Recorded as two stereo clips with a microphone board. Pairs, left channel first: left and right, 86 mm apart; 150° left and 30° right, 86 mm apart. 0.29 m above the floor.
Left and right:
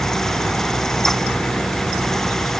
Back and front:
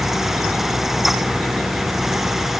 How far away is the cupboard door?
I don't hear a cupboard door.